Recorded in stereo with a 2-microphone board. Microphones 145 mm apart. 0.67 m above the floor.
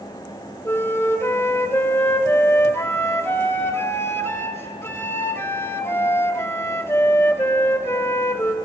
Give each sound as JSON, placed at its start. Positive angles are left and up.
{"t": 0.7, "sound": "a flute", "side_deg": 15, "distance_m": 0.9}